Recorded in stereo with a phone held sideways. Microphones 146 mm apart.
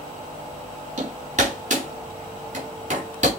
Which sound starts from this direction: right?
Hammering, at 1.0 s.